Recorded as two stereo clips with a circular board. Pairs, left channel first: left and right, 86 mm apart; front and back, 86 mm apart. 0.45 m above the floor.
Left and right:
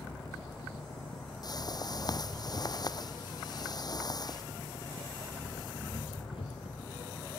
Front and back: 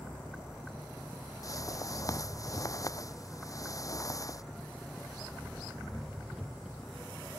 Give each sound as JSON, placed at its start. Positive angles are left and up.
{"t": 0.0, "sound": "an engine running", "azimuth_deg": 90}
{"t": 1.4, "sound": "a whoosh", "azimuth_deg": 50}